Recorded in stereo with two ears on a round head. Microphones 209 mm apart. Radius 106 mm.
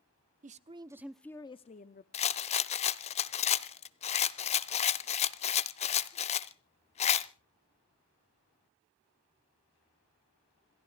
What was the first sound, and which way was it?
A woman speaking, 35° right (ahead or behind).